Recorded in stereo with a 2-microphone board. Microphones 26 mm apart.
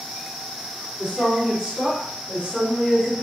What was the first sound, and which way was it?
A woman speaking, 50° right (ahead or behind).